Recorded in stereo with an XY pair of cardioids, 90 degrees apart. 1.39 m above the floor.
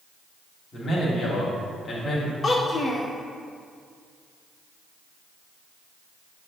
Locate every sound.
0.7 s a man speaking: 50° left, 2 m
2.4 s a child speaking: 45° left, 0.6 m